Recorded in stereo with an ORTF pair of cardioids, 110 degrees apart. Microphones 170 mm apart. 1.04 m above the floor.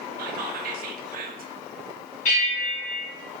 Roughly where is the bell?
Ahead left.